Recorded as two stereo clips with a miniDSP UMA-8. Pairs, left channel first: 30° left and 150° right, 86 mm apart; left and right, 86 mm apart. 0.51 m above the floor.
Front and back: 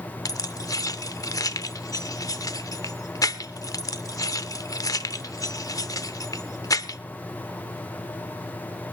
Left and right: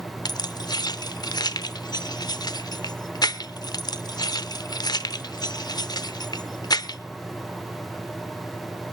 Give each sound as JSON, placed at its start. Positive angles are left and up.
{"t": 0.2, "sound": "keys jangling", "azimuth_deg": 65, "distance_m": 0.7}